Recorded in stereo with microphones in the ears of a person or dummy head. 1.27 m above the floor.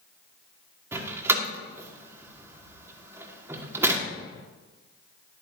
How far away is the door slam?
About 1.6 m.